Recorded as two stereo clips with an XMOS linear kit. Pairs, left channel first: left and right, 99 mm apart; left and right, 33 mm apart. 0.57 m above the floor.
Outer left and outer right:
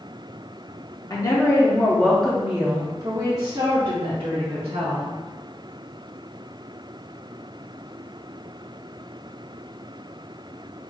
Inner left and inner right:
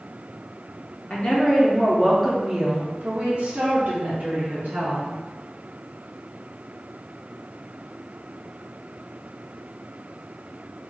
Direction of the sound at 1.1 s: 40° left (ahead or behind).